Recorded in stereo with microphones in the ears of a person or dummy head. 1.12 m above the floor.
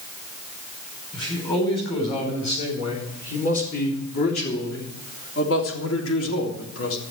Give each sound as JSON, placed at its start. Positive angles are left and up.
{"t": 1.1, "sound": "a man speaking", "side_deg": 30, "distance_m": 4.5}